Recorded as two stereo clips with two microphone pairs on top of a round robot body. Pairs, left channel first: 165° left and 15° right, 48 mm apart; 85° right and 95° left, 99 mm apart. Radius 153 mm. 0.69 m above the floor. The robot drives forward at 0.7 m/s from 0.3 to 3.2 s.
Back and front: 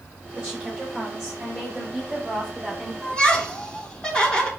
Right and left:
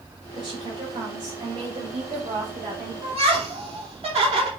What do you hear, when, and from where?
0.3 s a woman speaking: 55° left, 5.5 m; by 2.9 s 70° left, 5 m
3.0 s laughter: 85° left, 3.5 m; by 4.5 s 90° left, 3.5 m